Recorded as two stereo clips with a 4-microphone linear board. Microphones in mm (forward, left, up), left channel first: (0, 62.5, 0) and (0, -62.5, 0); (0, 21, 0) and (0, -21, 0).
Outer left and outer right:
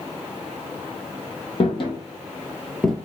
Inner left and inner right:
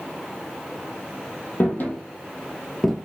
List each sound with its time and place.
1.6 s footsteps: 45° left (ahead or behind), 1.0 m; by 3.0 s centre (ahead or behind), 0.5 m